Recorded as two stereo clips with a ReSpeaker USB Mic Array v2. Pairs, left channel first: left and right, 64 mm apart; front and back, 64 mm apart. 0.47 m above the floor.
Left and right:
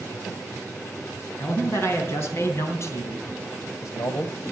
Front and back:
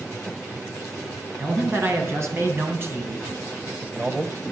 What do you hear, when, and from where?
1.4 s a man speaking: 140° left, 4.5 m; by 4.4 s 100° left, 1.8 m